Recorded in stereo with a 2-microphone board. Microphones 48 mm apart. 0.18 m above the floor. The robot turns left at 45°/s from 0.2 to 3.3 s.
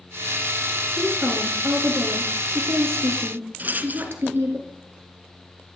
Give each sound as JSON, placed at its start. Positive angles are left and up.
{"t": 1.0, "sound": "a woman speaking", "azimuth_deg": -10, "distance_m": 3.0}
{"t": 3.6, "sound": "a rattle", "side_deg": -40, "distance_m": 1.1}